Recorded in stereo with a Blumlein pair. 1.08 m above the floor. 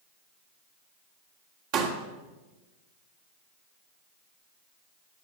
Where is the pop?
40° right, 2 m.